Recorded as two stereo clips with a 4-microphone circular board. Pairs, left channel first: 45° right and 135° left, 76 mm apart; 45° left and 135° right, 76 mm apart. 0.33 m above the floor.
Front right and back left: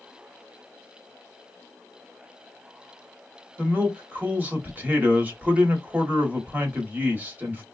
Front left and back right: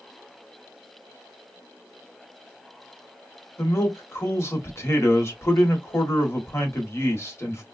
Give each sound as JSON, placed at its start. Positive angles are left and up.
{"t": 3.6, "sound": "a man speaking", "azimuth_deg": 80, "distance_m": 1.1}